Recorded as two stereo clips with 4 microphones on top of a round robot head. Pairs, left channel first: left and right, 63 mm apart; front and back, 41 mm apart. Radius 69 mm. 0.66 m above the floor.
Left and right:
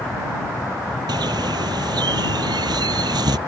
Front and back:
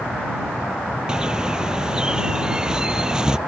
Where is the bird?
105° right.